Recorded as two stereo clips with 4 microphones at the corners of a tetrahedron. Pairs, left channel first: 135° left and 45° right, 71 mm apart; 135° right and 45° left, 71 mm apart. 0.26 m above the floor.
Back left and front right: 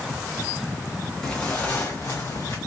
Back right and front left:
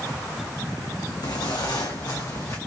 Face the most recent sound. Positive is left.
turn(degrees=180)